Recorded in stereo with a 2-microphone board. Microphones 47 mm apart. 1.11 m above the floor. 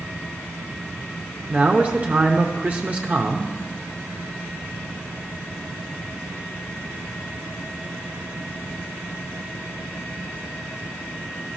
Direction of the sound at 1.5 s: 25° right (ahead or behind).